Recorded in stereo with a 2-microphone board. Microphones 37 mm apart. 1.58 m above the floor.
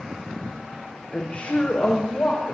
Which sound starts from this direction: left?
A woman speaking, at 1.1 s.